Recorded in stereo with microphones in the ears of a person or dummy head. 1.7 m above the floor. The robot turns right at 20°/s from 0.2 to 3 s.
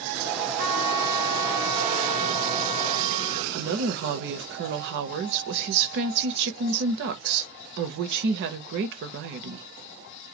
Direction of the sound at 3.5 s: 60° right (ahead or behind).